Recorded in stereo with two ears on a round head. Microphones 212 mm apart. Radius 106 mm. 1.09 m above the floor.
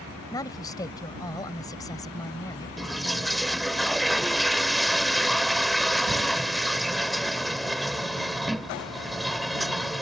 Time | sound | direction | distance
0.3 | a woman speaking | 15° left (ahead or behind) | ?
2.8 | a toilet flushing | centre (ahead or behind) | ?